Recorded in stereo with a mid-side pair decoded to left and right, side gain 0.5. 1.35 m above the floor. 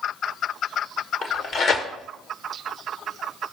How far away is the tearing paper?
About 1.5 m.